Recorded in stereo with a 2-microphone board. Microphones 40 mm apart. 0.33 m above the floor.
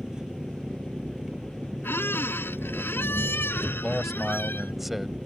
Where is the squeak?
75° left (ahead or behind).